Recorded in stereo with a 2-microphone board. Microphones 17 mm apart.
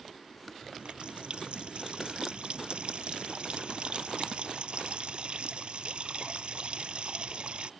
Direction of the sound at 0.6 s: 70° right (ahead or behind).